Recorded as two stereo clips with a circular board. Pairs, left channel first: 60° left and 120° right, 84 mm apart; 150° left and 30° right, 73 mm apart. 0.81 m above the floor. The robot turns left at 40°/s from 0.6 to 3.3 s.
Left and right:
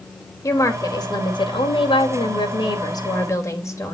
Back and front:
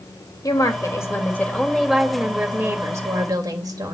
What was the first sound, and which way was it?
A woman speaking, 115° left.